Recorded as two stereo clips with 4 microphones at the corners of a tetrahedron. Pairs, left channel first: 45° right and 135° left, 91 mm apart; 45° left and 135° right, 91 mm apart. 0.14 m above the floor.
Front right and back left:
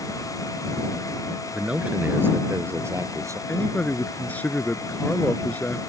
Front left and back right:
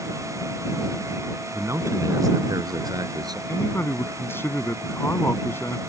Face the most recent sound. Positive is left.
turn(degrees=10)